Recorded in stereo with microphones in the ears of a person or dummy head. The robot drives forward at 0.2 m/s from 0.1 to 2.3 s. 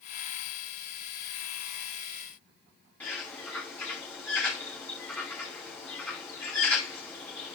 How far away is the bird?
About 5 m.